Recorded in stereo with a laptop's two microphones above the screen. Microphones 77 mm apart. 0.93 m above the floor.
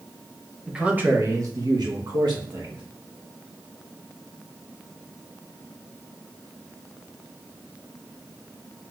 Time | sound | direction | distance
0.7 | a man speaking | 10° right (ahead or behind) | 0.8 m